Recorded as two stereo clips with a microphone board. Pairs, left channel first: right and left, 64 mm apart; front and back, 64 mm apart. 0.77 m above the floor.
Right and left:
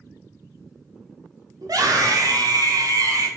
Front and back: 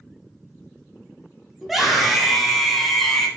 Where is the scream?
95° left, 4 m; by 3.3 s 85° left, 3.5 m.